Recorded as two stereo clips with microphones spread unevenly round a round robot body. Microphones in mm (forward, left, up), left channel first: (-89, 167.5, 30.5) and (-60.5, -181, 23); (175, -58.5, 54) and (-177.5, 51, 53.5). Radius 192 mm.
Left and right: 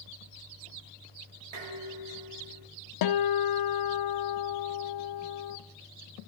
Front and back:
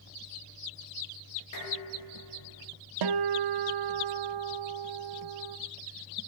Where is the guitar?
125° left, 0.7 m.